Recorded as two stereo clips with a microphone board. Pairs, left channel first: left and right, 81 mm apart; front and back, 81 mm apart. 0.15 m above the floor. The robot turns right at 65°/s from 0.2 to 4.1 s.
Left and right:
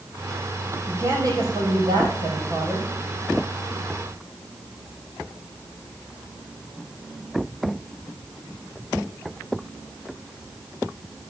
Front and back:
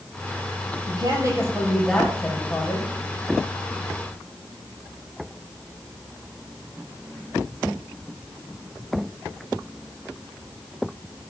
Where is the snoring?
I don't hear snoring.